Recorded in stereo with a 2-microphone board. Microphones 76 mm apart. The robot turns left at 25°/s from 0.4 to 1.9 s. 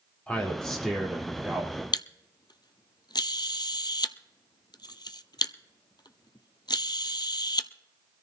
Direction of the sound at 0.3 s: 15° left.